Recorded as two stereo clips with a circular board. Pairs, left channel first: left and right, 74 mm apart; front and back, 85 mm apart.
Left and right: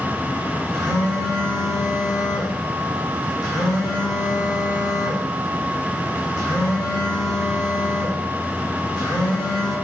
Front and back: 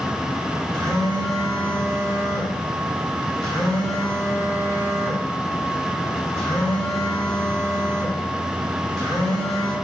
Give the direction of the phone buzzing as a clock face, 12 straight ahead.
9 o'clock.